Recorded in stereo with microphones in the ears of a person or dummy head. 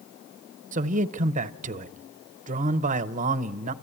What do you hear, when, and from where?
0.7 s a man speaking: 40° right (ahead or behind), 0.7 m